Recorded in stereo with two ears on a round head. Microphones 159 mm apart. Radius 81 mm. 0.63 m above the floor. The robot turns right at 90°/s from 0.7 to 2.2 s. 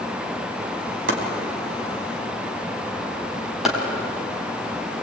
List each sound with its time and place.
1.1 s chopping: 75° right (ahead or behind), 4.5 m; by 3.8 s centre (ahead or behind), 4.5 m